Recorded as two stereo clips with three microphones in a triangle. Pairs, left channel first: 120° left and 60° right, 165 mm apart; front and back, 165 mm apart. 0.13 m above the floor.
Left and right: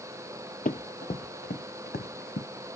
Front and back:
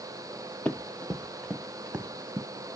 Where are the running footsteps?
80° left, 0.9 m; by 2.5 s 100° left, 1.7 m.